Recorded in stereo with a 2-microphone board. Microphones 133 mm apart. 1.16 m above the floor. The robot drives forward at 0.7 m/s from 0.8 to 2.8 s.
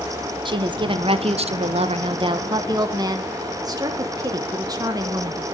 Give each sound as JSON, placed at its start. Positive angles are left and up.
{"t": 0.5, "sound": "a woman speaking", "side_deg": -40, "distance_m": 0.9}